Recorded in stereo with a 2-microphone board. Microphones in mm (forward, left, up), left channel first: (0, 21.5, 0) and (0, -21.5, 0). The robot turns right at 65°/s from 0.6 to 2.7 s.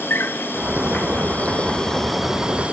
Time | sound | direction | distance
0.0 | an insect | 75° left | 1.0 m